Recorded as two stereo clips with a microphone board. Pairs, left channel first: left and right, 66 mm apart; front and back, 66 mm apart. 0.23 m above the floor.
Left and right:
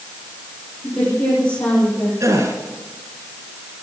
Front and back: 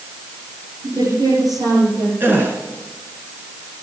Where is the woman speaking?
165° left, 7.5 m.